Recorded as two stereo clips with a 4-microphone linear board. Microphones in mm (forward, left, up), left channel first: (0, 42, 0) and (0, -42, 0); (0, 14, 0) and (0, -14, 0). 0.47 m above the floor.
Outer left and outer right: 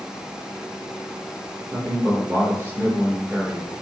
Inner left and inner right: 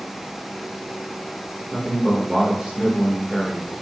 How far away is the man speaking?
About 1.1 m.